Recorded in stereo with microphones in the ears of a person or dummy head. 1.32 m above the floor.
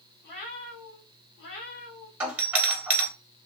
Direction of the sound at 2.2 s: 15° right (ahead or behind).